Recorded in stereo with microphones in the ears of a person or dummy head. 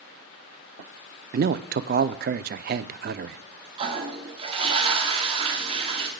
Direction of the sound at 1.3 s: 50° right (ahead or behind).